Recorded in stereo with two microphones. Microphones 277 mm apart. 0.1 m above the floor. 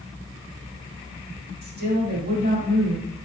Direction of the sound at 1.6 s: 40° right (ahead or behind).